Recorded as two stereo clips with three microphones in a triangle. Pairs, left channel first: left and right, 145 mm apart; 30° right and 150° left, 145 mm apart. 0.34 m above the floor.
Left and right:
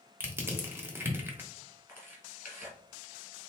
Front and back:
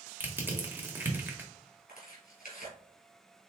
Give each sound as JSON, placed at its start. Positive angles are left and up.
{"t": 0.2, "sound": "crushing", "azimuth_deg": -145, "distance_m": 1.1}
{"t": 1.9, "sound": "tearing paper", "azimuth_deg": -15, "distance_m": 2.0}